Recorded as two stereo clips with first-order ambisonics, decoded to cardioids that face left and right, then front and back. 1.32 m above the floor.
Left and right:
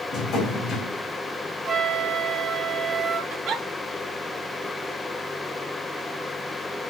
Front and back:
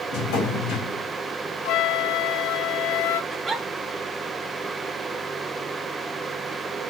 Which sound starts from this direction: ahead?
A flute, at 1.6 s.